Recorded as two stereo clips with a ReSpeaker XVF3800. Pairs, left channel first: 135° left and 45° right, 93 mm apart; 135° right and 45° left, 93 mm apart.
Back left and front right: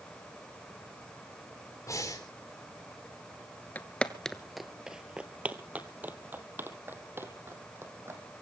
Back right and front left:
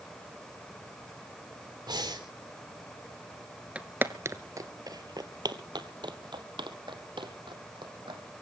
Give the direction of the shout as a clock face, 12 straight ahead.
I don't hear a shout.